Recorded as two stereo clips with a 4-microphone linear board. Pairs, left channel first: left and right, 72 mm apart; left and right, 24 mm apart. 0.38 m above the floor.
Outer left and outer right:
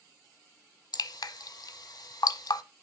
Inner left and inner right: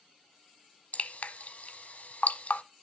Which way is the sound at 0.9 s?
70° left (ahead or behind).